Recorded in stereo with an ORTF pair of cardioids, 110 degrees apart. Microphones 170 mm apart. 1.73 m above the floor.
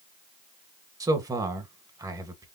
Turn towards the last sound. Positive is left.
turn(degrees=-20)